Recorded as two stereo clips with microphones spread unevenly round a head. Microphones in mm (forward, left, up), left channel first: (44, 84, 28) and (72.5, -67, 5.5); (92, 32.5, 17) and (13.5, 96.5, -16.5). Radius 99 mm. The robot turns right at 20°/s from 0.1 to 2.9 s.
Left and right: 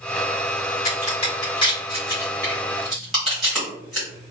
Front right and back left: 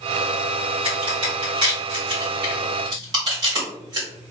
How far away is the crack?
About 1.6 m.